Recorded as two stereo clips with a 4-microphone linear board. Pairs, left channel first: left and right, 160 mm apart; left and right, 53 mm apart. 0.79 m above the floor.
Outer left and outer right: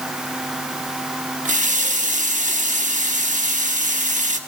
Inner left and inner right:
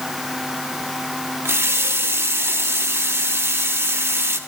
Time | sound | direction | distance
1.4 | a running tap | 55° right (ahead or behind) | 1.0 m